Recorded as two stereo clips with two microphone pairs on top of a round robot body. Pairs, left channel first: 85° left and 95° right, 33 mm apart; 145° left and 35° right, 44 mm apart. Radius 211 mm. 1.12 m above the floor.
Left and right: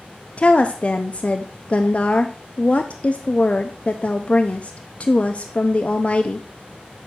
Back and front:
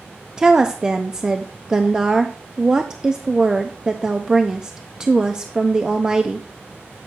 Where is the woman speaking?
45° left, 0.6 m.